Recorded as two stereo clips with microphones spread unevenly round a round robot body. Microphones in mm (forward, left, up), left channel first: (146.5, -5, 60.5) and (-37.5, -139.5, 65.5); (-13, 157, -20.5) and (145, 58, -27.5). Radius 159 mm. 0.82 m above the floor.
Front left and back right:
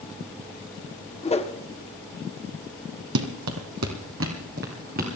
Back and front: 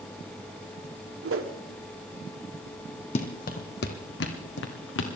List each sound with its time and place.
1.2 s a whoosh: 30° right, 1.4 m
3.1 s running footsteps: 155° right, 1.4 m; by 5.1 s 150° left, 2.5 m